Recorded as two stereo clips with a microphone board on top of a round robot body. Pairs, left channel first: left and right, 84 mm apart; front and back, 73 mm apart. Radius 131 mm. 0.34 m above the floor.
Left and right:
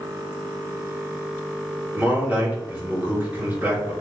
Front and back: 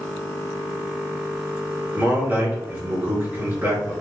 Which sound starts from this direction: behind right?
A man speaking, at 1.9 s.